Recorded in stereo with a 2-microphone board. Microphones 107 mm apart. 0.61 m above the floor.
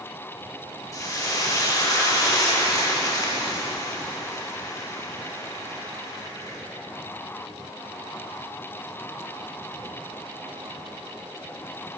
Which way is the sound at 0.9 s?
30° left (ahead or behind).